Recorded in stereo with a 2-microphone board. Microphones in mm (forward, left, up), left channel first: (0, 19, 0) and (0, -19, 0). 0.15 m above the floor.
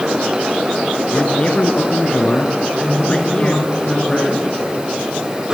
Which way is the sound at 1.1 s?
30° left (ahead or behind).